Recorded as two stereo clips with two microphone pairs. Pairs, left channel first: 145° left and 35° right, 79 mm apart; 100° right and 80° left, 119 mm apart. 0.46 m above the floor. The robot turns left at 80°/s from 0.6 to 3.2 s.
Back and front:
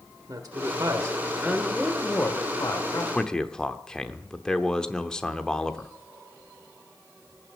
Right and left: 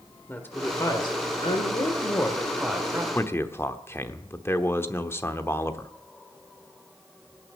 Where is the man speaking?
135° right, 0.9 m; by 5.9 s 140° right, 0.9 m.